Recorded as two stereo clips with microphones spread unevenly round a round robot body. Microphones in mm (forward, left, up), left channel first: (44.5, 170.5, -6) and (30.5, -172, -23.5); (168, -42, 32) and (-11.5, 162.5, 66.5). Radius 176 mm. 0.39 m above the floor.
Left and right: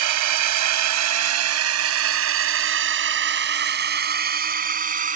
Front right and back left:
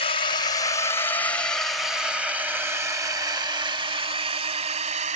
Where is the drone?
115° right; by 5.2 s 160° right.